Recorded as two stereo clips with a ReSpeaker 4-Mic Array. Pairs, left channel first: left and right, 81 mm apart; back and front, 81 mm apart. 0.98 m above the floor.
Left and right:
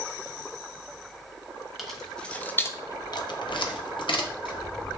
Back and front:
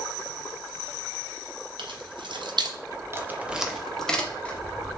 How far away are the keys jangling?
About 0.8 m.